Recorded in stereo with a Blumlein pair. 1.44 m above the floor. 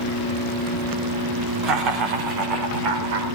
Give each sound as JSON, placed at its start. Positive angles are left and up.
{"t": 1.6, "sound": "laughter", "azimuth_deg": -35, "distance_m": 4.5}